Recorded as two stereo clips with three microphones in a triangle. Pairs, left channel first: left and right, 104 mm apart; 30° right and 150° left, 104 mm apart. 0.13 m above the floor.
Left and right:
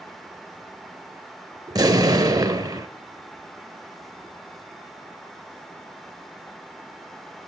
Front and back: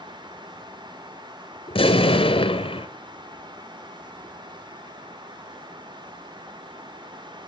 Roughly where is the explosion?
Ahead right.